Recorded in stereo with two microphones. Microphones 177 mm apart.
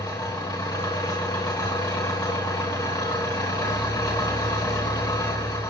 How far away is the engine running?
About 3 m.